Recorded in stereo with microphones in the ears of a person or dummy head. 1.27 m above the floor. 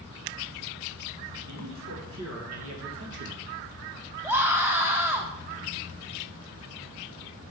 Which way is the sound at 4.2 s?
15° right (ahead or behind).